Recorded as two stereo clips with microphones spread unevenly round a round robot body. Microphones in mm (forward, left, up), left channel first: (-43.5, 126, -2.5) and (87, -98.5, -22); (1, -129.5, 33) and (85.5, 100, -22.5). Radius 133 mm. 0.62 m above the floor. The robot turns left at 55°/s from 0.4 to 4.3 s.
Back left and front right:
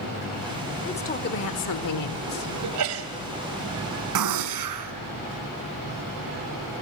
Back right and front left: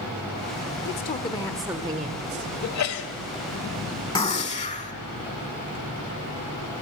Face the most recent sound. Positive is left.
turn(degrees=-45)